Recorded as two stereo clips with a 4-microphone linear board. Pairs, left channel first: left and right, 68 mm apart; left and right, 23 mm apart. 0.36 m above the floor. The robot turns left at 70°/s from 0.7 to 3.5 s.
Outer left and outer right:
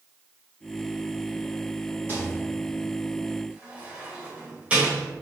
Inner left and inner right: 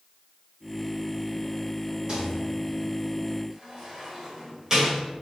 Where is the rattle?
35° right (ahead or behind), 1.3 m; by 5.1 s 15° right (ahead or behind), 1.3 m.